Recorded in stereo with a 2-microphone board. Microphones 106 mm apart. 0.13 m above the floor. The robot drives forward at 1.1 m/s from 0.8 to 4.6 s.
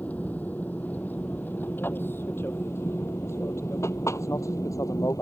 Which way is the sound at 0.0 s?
15° left (ahead or behind).